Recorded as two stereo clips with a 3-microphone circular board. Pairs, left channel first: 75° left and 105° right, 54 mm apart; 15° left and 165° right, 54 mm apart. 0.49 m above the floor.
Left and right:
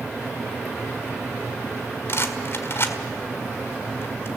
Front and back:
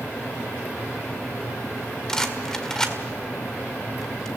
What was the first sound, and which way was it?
A rattle, 95° left.